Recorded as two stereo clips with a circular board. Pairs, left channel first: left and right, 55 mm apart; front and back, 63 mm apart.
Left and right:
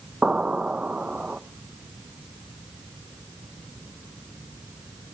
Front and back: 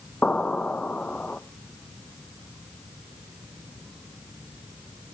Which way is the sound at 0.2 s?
45° right.